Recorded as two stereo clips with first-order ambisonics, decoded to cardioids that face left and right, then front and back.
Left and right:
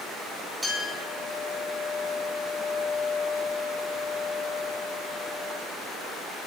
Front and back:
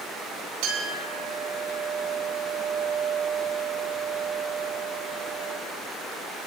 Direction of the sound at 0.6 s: Straight behind.